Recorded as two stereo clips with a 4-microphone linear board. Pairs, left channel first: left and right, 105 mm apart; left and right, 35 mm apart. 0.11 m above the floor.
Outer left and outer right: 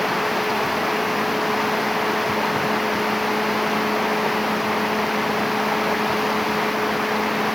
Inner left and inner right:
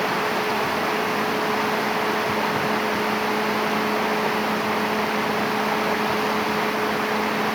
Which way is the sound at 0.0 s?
Centre (ahead or behind).